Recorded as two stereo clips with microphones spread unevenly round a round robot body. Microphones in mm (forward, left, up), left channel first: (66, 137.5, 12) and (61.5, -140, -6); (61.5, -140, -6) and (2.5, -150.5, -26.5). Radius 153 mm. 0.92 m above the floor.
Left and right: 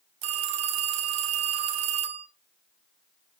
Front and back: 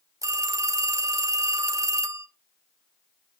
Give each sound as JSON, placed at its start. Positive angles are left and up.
{"t": 0.2, "sound": "a phone ringing", "azimuth_deg": -140, "distance_m": 0.8}